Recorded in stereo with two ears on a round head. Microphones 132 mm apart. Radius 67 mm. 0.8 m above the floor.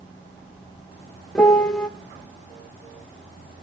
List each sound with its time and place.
1.4 s a piano: 5° left (ahead or behind), 0.7 m